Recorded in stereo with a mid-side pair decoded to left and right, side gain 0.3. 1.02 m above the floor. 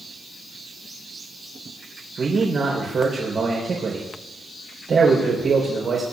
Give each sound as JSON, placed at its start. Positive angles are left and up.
{"t": 2.2, "sound": "a man speaking", "azimuth_deg": -70, "distance_m": 4.0}